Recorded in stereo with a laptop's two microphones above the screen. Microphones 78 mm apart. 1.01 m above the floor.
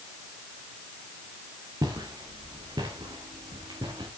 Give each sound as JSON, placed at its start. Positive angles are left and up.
{"t": 1.8, "sound": "footsteps", "side_deg": -55, "distance_m": 5.0}